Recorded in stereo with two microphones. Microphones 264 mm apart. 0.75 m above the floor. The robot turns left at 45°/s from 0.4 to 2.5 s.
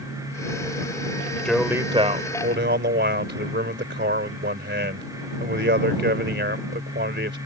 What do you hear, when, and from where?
1.4 s a man speaking: 5° left; by 7.4 s 45° right